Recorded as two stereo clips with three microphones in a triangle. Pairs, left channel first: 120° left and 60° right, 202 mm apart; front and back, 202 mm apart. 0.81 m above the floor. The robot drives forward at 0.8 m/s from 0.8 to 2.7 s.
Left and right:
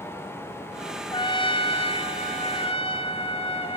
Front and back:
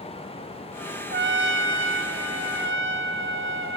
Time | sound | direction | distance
1.1 | a trumpet | straight behind | 0.5 m